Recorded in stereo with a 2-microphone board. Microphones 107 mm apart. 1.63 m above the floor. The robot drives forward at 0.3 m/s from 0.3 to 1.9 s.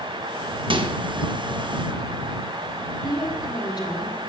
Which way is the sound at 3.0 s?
40° left (ahead or behind).